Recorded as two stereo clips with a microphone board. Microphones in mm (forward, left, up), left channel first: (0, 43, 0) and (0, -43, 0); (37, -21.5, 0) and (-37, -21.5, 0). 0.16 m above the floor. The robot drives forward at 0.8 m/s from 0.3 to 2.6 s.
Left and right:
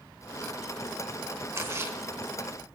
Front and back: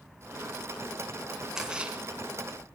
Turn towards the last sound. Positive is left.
turn(degrees=-140)